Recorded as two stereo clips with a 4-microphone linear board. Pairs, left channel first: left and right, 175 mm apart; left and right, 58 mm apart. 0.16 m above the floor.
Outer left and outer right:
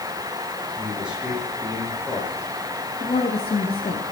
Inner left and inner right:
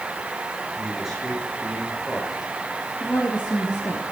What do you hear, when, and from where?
0.8 s a man speaking: 5° right (ahead or behind), 9 m
3.0 s a woman speaking: 35° left (ahead or behind), 3 m